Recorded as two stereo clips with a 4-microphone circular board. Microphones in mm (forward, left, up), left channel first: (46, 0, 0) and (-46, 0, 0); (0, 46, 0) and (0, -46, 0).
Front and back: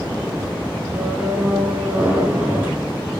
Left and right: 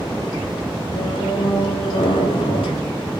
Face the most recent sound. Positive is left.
turn(degrees=110)